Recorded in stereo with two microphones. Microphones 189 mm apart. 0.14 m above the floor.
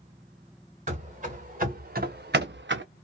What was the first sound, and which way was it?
Running footsteps, 40° right (ahead or behind).